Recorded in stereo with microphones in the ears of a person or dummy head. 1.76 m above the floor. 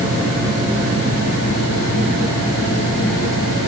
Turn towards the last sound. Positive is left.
No sound to turn to.